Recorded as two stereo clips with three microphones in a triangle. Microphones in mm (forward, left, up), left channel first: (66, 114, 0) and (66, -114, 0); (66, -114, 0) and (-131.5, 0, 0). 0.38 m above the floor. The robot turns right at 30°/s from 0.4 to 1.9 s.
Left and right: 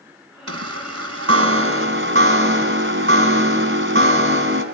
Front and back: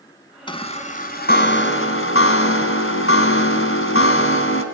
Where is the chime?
100° right, 1.9 m; by 4.6 s 60° right, 1.9 m.